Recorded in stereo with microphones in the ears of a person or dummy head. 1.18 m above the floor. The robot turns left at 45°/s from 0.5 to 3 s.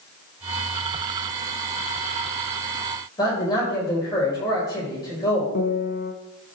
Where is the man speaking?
20° left (ahead or behind), 5 m.